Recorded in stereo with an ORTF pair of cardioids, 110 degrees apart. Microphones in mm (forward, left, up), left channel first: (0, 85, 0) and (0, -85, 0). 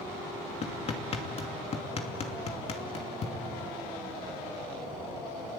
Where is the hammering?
40° left, 2.5 m.